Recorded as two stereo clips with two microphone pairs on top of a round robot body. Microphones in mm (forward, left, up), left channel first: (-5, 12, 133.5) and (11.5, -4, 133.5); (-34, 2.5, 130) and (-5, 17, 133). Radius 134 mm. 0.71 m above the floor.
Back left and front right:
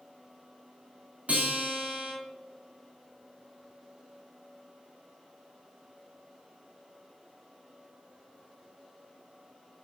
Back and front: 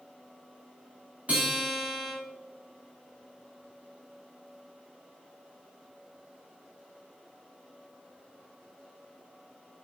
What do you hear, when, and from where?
1.3 s a guitar: 15° right, 1.3 m